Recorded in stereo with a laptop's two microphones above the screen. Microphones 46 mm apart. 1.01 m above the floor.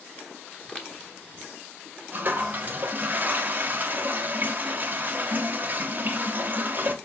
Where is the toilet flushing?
35° right (ahead or behind), 0.5 m.